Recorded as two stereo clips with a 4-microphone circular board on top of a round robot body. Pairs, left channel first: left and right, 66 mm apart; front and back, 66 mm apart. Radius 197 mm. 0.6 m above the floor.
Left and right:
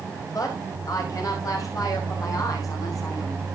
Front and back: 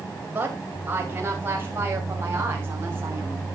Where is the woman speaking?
120° left, 5 m; by 3.5 s 125° left, 6.5 m.